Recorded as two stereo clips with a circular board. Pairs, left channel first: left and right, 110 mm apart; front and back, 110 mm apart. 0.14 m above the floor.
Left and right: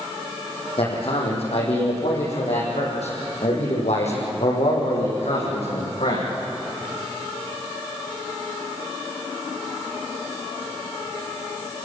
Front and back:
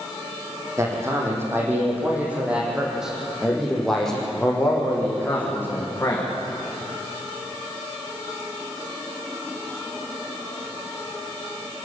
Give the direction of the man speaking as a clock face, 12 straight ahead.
8 o'clock.